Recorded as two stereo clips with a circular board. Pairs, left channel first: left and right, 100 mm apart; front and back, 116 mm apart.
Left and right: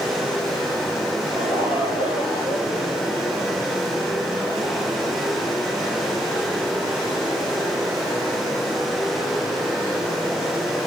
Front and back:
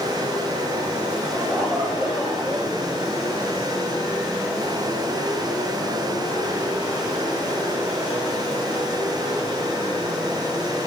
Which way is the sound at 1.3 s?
90° left.